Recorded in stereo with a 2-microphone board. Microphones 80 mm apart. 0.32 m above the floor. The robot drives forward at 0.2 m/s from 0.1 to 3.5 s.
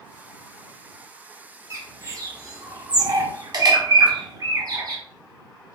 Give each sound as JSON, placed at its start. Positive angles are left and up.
{"t": 1.7, "sound": "a bird", "side_deg": -40, "distance_m": 0.7}